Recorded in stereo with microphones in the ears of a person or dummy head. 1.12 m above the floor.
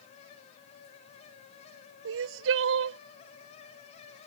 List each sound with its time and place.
2.0 s crying: 75° right (ahead or behind)